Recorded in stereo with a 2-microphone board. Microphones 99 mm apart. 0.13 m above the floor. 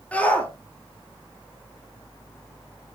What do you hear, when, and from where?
0.1 s a shout: 15° left (ahead or behind), 3 m